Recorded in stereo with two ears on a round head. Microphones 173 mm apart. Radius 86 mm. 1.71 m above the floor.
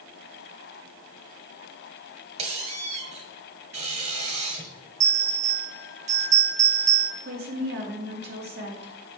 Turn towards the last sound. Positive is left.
turn(degrees=-55)  # may be behind; listen again after turning